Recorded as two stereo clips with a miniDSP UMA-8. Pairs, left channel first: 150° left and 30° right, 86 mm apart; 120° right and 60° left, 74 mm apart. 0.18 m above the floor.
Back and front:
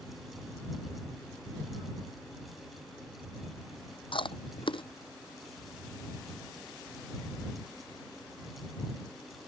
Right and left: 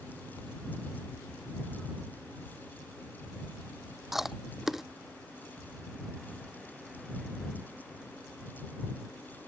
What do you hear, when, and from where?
4.1 s chewing: 145° left